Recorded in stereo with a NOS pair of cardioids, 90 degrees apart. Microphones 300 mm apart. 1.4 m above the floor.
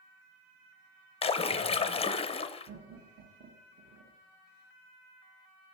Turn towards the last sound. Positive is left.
turn(degrees=-30)